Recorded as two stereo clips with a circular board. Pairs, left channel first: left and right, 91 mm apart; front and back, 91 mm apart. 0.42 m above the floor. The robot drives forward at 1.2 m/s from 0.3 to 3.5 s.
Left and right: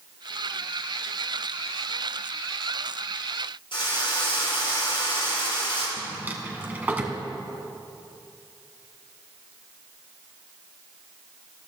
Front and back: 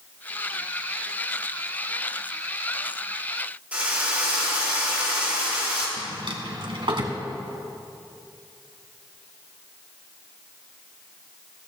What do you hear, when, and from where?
3.7 s a drill: 105° left, 5.5 m
6.0 s a drawer: 160° right, 1.8 m